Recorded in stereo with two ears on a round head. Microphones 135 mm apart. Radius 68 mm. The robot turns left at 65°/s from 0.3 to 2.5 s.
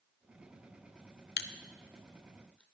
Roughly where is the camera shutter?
Left.